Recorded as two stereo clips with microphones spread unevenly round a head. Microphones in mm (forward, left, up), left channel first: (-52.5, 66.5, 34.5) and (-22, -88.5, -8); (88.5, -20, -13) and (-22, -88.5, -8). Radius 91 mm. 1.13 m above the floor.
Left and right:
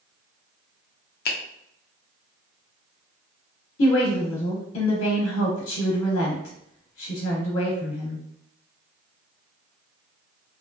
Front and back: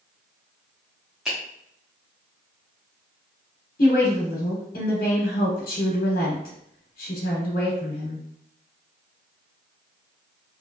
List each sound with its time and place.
1.2 s a finger snap: 120° left, 0.7 m
3.8 s a woman speaking: 75° left, 0.8 m